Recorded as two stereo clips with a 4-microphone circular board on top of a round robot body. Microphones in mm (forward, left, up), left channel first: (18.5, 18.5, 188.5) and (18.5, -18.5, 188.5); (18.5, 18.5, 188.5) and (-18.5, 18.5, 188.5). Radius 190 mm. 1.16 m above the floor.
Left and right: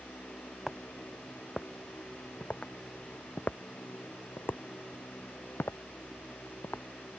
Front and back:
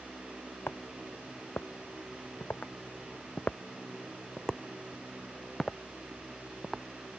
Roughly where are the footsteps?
Ahead.